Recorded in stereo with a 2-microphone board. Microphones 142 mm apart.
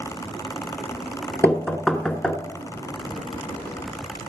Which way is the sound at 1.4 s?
5° left (ahead or behind).